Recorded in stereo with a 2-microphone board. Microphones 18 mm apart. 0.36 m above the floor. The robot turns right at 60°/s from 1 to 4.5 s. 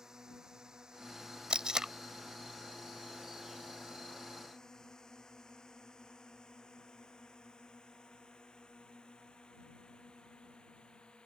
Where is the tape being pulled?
50° right (ahead or behind); by 1.9 s 35° right (ahead or behind).